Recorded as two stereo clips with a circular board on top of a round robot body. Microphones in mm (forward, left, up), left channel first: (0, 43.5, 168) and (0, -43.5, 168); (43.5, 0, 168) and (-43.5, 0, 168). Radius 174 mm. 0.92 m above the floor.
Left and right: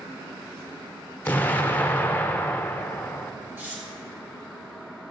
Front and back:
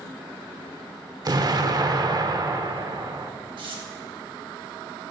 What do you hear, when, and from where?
1.2 s an explosion: 155° left, 1.0 m
3.6 s tearing paper: 155° right, 3 m